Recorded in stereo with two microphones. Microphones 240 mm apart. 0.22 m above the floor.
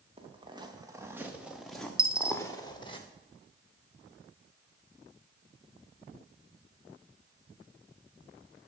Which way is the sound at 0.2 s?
25° right (ahead or behind).